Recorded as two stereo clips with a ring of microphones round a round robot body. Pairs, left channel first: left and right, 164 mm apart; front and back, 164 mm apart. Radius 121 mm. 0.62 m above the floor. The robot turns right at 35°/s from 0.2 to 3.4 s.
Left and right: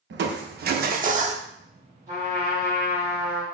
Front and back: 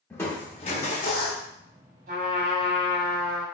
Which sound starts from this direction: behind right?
A trumpet, at 2.1 s.